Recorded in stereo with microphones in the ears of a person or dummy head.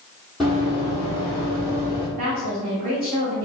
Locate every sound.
0.4 s running footsteps: centre (ahead or behind), 2.0 m; by 2.1 s 15° right (ahead or behind), 3.5 m
2.2 s a woman speaking: 45° right (ahead or behind), 1.3 m